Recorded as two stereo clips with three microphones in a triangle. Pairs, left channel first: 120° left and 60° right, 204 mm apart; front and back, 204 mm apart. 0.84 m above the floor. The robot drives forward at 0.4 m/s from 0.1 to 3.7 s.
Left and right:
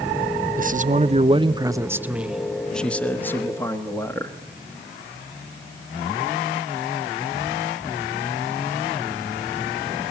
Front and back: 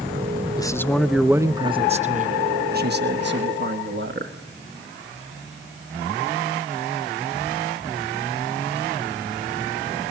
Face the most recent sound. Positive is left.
turn(degrees=-165)